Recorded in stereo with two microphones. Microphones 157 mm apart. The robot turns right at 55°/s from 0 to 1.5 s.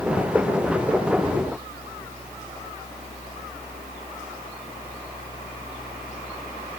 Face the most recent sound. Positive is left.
No sound to turn to.